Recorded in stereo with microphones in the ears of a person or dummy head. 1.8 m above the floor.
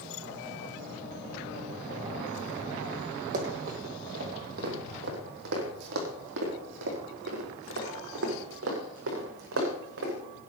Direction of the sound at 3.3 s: 45° right (ahead or behind).